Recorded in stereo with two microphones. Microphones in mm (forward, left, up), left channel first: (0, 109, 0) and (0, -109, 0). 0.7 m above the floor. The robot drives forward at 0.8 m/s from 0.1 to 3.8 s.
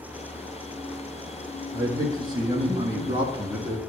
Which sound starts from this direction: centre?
A man speaking, at 1.7 s.